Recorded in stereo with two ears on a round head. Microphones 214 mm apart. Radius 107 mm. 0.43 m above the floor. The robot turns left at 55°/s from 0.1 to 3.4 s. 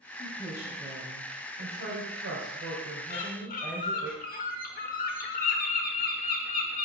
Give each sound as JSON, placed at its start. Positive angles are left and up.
{"t": 0.2, "sound": "a woman speaking", "azimuth_deg": 30, "distance_m": 2.5}
{"t": 3.1, "sound": "a bird", "side_deg": 30, "distance_m": 1.0}